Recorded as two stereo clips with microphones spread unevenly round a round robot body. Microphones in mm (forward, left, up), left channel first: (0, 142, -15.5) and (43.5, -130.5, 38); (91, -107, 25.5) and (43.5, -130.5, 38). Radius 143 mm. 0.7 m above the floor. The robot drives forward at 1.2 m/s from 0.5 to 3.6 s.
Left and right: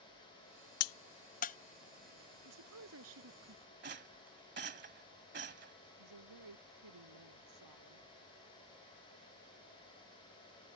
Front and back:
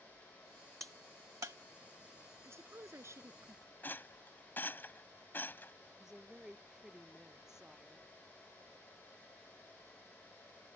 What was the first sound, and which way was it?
A crack, 140° left.